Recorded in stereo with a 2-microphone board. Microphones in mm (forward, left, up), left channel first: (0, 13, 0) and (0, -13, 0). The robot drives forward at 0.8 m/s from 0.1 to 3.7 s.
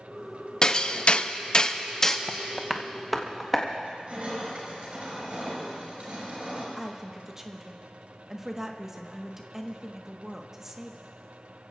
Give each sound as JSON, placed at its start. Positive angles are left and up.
{"t": 0.6, "sound": "hammering", "side_deg": 30, "distance_m": 0.7}
{"t": 2.3, "sound": "tapping", "side_deg": 15, "distance_m": 0.5}
{"t": 3.8, "sound": "crushing", "side_deg": -60, "distance_m": 5.5}
{"t": 6.8, "sound": "a woman speaking", "side_deg": -20, "distance_m": 1.3}